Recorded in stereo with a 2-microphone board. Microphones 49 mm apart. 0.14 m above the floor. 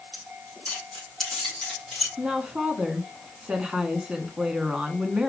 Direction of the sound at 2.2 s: 20° right (ahead or behind).